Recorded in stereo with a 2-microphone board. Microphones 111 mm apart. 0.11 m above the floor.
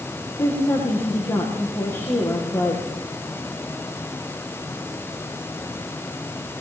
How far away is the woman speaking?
About 7 m.